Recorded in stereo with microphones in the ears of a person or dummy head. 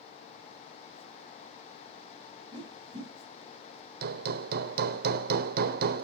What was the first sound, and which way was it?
A whoosh, 25° right (ahead or behind).